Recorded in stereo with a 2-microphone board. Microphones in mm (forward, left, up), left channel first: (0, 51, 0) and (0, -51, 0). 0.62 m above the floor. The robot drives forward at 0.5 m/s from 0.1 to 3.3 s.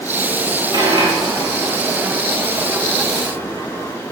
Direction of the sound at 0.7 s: 50° right (ahead or behind).